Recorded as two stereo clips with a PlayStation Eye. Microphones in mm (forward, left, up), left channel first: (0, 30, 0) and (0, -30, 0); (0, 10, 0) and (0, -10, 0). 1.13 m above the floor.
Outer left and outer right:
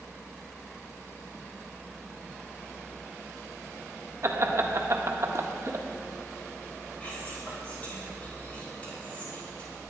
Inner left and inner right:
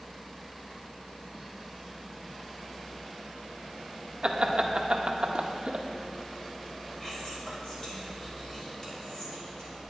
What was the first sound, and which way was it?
Laughter, 45° right (ahead or behind).